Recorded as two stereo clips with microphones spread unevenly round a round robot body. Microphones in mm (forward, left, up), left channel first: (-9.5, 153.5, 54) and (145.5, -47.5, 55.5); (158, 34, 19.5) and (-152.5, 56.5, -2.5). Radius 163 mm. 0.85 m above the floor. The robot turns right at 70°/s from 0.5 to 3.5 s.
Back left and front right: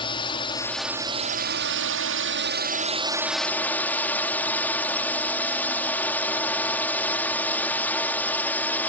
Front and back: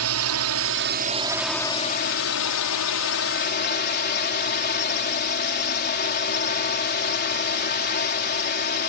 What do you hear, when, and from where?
0.0 s a drone: 165° right; by 8.9 s 45° left